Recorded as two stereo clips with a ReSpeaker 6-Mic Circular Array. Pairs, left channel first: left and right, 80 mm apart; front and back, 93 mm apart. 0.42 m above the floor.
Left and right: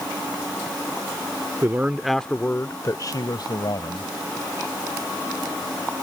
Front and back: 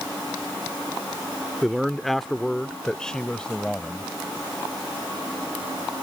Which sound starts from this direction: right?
A man speaking, at 1.6 s.